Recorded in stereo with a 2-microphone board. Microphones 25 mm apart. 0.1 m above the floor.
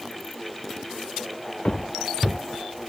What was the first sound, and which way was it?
Footsteps, 55° left (ahead or behind).